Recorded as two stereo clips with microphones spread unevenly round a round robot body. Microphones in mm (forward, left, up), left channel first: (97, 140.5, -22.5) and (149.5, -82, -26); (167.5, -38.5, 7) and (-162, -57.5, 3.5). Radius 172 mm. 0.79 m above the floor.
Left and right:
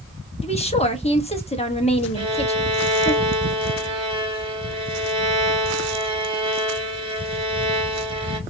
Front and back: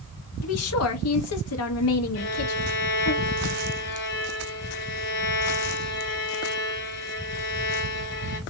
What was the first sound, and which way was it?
A woman speaking, 45° left.